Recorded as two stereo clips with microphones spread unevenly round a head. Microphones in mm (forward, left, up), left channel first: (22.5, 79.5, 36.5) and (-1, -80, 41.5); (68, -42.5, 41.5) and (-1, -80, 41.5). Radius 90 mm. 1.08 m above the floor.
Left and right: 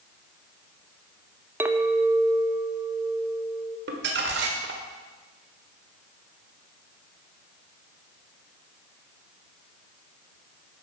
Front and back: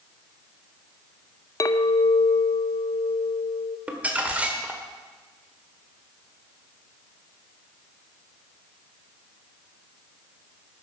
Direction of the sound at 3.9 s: 80° right.